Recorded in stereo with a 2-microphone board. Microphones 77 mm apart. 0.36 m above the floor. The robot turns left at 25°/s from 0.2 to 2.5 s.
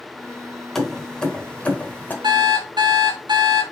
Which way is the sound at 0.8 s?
5° left (ahead or behind).